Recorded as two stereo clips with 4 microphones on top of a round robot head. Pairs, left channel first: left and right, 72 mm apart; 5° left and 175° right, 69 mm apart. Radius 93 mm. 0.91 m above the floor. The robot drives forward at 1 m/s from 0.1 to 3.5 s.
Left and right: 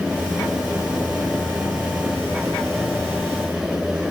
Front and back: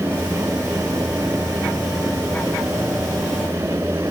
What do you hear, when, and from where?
Only background noise.